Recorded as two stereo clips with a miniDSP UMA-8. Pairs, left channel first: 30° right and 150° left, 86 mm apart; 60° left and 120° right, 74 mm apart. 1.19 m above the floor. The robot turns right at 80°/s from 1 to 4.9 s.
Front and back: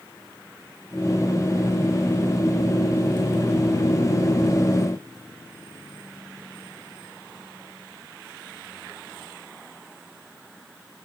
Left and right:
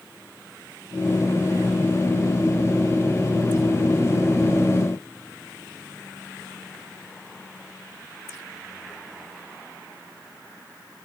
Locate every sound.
Only background noise.